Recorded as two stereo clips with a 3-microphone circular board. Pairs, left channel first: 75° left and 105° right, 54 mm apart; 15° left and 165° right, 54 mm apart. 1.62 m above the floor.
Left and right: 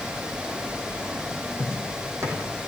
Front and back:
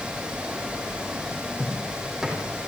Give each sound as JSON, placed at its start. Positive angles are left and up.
{"t": 1.6, "sound": "footsteps", "azimuth_deg": -80, "distance_m": 5.0}